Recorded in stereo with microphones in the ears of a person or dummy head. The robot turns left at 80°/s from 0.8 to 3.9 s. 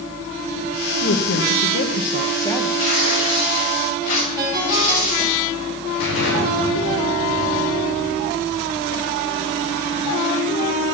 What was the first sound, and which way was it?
A woman speaking, 135° left.